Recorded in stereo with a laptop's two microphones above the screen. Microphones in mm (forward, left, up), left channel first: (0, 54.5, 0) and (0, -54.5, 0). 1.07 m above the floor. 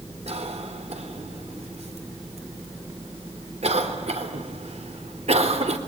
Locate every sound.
0.3 s a cough: 75° right (ahead or behind), 3.5 m